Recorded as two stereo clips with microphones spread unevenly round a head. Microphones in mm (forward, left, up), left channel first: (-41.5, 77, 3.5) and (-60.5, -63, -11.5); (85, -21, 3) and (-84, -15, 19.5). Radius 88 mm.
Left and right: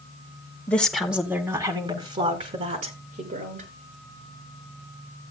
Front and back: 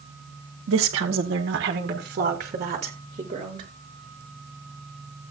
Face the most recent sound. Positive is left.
turn(degrees=-120)